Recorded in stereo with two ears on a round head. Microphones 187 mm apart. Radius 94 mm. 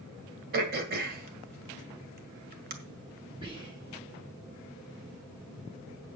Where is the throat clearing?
45° right (ahead or behind), 1.8 m.